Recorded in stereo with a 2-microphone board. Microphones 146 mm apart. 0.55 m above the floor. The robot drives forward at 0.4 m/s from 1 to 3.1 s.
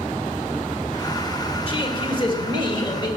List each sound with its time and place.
1.7 s a man speaking: 40° left (ahead or behind), 2.5 m; by 3.1 s 35° left (ahead or behind), 2.5 m